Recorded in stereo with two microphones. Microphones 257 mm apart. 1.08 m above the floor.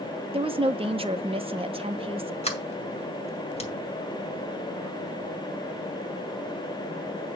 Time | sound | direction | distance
0.3 | a woman speaking | 20° right (ahead or behind) | 0.9 m
2.4 | a sliding door | 25° left (ahead or behind) | 2 m